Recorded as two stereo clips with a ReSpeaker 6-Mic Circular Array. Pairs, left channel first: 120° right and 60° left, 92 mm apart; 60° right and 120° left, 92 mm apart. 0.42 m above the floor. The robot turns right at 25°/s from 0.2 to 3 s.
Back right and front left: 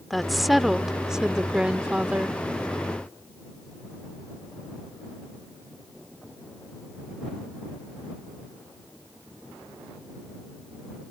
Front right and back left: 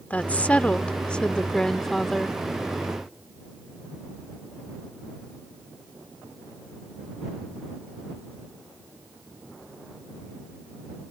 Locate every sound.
0.1 s a woman speaking: 30° right; by 2.4 s 25° left